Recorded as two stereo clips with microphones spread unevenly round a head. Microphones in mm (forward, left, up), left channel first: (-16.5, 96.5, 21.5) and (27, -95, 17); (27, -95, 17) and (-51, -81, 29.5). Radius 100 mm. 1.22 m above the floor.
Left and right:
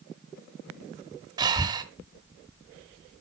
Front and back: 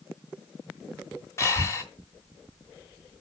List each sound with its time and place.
1.4 s breathing: 30° right, 1.0 m